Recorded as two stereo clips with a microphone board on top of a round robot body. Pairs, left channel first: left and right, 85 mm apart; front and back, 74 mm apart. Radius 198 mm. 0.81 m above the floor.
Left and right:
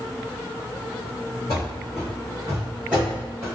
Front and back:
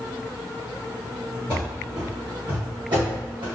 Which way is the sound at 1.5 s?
135° left.